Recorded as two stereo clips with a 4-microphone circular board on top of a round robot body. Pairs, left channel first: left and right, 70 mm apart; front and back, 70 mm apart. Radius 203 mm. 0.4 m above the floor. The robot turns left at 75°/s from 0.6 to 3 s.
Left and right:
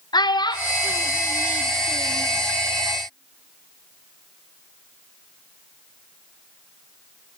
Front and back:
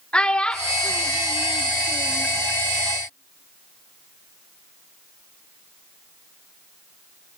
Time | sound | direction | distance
0.1 | a child speaking | 75° left | 0.7 m